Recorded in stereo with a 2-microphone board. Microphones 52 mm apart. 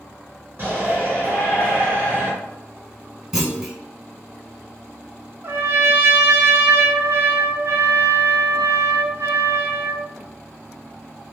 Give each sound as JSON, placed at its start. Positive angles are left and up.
{"t": 0.6, "sound": "a shout", "side_deg": -35, "distance_m": 1.5}
{"t": 3.3, "sound": "a clunk", "side_deg": -15, "distance_m": 1.3}
{"t": 5.4, "sound": "a trumpet", "side_deg": -55, "distance_m": 0.5}